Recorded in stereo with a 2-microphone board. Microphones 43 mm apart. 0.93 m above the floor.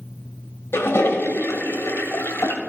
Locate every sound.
0.7 s a toilet flushing: 70° left (ahead or behind), 1.4 m